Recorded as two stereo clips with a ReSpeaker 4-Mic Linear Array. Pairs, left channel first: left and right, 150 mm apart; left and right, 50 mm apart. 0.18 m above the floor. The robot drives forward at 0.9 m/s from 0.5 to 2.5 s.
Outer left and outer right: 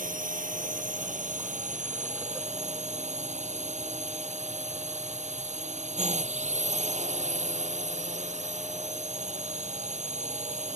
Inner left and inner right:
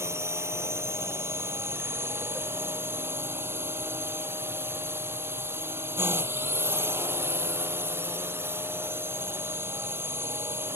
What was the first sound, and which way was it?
A drone, 65° right (ahead or behind).